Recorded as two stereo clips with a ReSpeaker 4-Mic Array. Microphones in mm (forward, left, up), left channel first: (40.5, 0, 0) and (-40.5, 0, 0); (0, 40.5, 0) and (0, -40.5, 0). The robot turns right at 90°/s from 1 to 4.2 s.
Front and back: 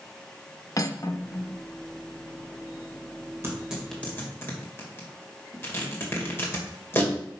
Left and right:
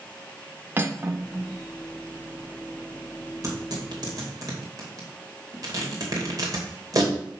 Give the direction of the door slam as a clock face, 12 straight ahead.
No door slam in this recording.